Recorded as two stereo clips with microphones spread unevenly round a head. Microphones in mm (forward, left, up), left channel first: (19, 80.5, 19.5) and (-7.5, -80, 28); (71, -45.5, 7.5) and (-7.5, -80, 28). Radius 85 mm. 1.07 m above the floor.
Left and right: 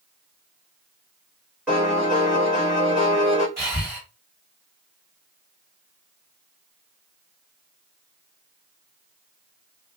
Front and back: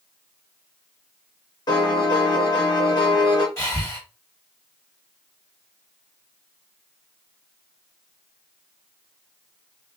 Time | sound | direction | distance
1.7 | a piano | 20° right | 1.4 m
3.6 | breathing | 25° right | 1.8 m